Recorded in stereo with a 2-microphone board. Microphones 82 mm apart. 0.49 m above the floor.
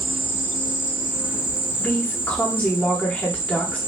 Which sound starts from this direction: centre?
A woman speaking, at 1.8 s.